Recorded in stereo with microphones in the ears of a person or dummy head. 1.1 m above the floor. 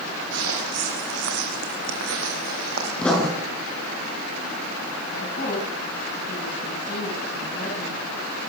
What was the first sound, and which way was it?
Footsteps, 75° right (ahead or behind).